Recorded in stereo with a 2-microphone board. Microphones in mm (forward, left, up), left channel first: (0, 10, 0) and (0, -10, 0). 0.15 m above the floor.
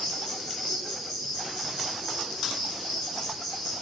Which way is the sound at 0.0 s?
10° left (ahead or behind).